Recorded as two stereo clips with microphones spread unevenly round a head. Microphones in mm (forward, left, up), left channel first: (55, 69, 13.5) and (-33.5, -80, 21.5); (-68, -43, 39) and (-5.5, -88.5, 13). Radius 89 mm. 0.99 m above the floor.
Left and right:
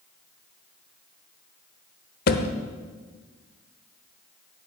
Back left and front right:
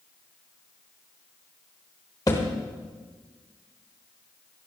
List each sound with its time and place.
2.3 s a thud: 95° left, 1.1 m